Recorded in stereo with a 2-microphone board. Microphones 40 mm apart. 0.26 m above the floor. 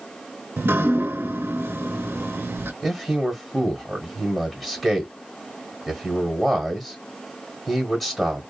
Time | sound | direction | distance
0.6 | dripping | 85° right | 0.6 m
2.8 | a man speaking | 5° left (ahead or behind) | 1.3 m